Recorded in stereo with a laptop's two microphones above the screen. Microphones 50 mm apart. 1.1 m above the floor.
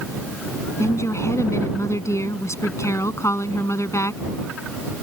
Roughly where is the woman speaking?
Left.